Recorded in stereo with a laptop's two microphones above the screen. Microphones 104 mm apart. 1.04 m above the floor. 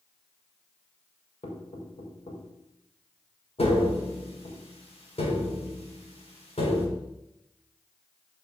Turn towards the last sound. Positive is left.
turn(degrees=70)  # may be behind; listen again after turning